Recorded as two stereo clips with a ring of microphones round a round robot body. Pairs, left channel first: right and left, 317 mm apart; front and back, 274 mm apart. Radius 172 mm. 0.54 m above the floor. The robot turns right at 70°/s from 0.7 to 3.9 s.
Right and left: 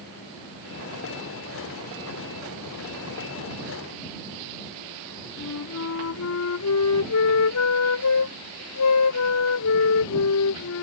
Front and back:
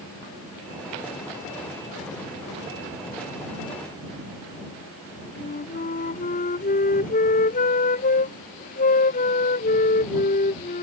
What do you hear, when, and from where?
5.4 s a flute: 60° right